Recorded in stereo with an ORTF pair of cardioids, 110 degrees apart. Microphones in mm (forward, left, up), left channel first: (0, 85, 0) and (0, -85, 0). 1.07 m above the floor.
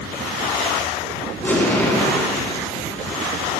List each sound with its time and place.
1.4 s an explosion: 15° left, 3.5 m